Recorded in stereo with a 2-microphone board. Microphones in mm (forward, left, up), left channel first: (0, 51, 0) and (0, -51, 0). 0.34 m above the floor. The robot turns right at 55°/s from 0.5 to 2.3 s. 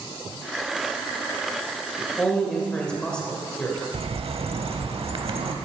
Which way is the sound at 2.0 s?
15° left (ahead or behind).